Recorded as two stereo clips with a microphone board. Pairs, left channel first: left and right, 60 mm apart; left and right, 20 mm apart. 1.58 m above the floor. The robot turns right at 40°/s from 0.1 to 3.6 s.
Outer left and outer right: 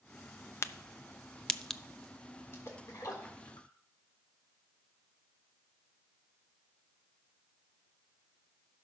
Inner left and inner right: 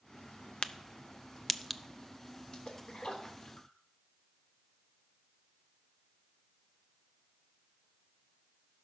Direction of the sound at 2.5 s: 45° left (ahead or behind).